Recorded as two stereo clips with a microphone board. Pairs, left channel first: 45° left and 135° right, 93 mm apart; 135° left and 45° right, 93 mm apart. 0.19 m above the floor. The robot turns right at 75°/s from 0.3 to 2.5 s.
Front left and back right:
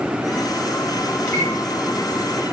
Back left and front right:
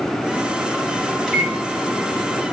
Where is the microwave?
55° left, 0.8 m; by 1.6 s 80° left, 0.8 m.